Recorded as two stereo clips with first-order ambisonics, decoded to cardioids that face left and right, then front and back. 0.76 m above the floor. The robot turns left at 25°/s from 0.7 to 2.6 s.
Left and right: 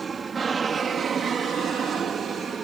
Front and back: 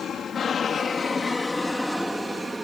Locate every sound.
0.0 s an aircraft: 35° right; by 2.6 s 115° right